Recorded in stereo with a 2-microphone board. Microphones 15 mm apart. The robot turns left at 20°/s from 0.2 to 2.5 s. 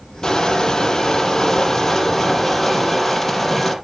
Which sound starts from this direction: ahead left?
Crushing, at 0.2 s.